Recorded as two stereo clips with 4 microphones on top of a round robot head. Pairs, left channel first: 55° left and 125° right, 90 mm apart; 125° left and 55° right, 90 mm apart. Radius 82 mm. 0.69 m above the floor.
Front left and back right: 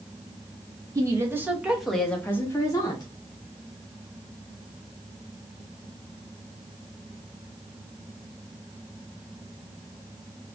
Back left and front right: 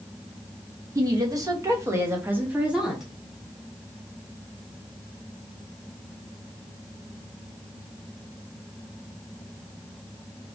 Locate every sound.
0.9 s a woman speaking: 85° right, 1.4 m; by 3.0 s 25° left, 1.6 m